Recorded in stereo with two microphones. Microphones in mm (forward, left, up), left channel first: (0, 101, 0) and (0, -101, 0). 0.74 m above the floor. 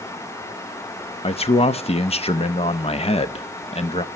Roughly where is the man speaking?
Left.